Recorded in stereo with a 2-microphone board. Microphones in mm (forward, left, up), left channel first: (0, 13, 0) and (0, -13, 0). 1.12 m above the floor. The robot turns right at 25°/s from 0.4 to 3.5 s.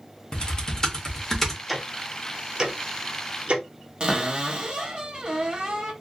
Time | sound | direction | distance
0.3 | typing on a keyboard | 30° left (ahead or behind) | 0.7 m
1.7 | ticking | 5° right (ahead or behind) | 0.5 m
4.0 | a cupboard door | 40° right (ahead or behind) | 0.8 m